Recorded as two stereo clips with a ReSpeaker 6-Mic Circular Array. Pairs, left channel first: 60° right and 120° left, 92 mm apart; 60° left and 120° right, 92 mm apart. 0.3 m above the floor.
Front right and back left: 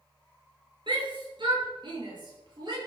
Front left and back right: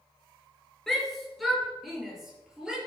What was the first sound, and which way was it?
A shout, 145° left.